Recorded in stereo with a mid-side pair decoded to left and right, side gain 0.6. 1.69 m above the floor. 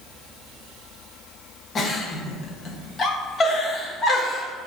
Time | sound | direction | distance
1.8 | a giggle | 35° left | 0.7 m